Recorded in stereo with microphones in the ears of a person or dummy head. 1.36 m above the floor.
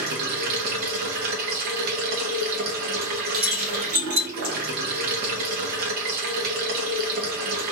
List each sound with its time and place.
0.0 s running water: 50° right (ahead or behind), 0.8 m
3.3 s keys jangling: 40° right (ahead or behind), 1.6 m